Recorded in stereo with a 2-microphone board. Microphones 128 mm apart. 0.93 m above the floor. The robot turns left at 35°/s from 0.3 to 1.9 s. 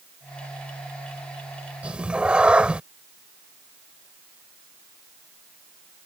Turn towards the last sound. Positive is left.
turn(degrees=-10)  # may be behind; listen again after turning